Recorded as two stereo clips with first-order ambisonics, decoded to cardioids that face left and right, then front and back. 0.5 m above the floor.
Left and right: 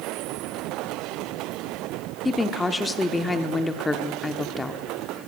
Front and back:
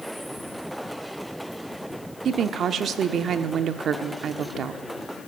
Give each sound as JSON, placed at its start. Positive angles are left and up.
{"t": 2.2, "sound": "a woman speaking", "azimuth_deg": 160, "distance_m": 0.7}